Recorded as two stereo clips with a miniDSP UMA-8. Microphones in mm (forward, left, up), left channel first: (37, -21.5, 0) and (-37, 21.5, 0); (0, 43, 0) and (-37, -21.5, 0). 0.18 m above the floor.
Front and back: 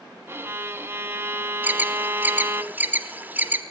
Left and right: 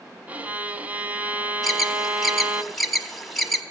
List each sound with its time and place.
0.3 s a violin: 170° right, 0.9 m
1.6 s an alarm: 150° left, 1.4 m